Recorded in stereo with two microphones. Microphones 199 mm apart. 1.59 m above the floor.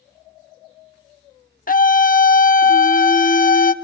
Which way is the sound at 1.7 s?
45° left (ahead or behind).